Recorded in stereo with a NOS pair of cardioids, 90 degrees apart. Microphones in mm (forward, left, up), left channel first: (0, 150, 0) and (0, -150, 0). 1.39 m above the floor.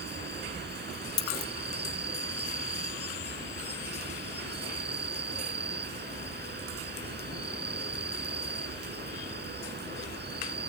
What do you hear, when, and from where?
0.0 s an insect: 35° right
1.2 s a dropped coin: 65° left